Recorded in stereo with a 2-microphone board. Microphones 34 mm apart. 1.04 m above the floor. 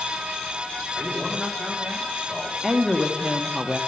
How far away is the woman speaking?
About 1.3 m.